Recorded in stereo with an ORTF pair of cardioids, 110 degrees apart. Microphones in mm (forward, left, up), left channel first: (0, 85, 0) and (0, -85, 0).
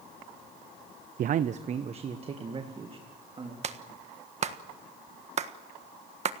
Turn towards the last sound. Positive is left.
turn(degrees=-45)